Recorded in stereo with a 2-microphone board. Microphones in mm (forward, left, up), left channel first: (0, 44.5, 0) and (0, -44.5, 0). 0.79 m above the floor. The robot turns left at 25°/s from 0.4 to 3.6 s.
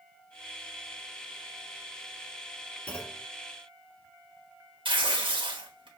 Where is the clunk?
15° left (ahead or behind), 1.5 m; by 3.3 s 5° left (ahead or behind), 1.5 m.